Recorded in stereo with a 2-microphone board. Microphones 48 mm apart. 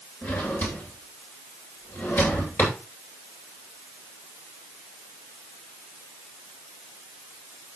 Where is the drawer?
60° left (ahead or behind), 8 m.